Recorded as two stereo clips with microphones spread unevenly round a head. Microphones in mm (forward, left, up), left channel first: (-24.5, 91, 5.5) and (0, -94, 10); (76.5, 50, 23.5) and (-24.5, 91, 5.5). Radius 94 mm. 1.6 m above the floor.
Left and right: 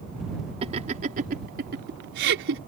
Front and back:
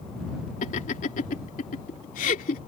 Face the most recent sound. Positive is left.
turn(degrees=-50)